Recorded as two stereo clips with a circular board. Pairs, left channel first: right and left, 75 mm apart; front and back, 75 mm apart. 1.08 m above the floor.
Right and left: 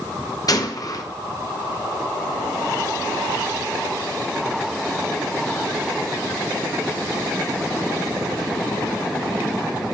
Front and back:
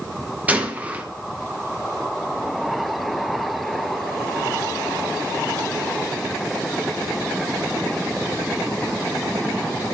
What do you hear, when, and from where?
0.5 s a gunshot: 115° right, 0.9 m